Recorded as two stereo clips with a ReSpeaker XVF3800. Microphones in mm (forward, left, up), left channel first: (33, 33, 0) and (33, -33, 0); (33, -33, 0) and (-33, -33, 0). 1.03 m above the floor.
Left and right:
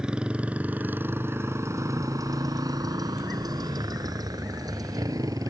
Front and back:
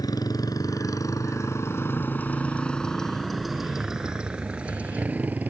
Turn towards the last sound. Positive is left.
turn(degrees=-115)